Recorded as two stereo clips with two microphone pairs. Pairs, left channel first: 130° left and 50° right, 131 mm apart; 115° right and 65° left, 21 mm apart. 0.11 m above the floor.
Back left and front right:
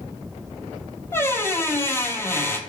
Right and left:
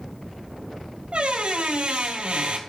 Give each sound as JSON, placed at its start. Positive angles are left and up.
{"t": 1.1, "sound": "a squeak", "azimuth_deg": 60, "distance_m": 0.5}